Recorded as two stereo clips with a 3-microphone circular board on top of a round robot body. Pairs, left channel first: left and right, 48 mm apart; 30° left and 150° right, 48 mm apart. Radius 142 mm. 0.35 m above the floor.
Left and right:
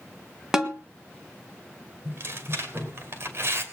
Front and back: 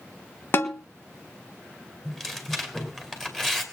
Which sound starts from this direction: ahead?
A snare drum, at 0.5 s.